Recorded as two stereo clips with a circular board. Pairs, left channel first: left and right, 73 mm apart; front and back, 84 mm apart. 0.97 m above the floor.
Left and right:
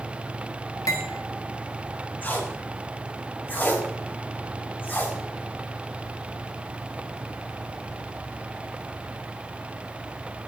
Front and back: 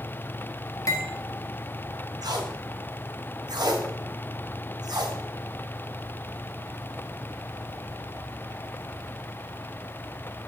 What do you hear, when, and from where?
0.9 s cutlery clinking: 50° left, 1.0 m
2.2 s tape being pulled: 150° left, 1.2 m